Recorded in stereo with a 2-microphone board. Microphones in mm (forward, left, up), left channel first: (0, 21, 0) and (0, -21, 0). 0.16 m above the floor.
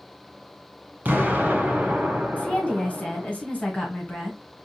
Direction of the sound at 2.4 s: 35° left (ahead or behind).